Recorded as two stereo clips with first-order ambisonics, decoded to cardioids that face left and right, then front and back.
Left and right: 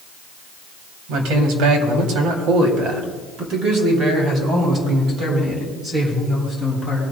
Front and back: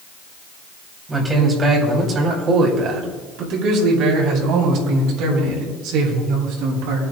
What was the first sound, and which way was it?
A man speaking, 105° right.